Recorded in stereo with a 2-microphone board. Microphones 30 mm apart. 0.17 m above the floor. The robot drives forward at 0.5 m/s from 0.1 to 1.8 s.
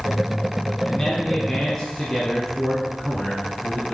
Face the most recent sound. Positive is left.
turn(degrees=15)  # may be behind; listen again after turning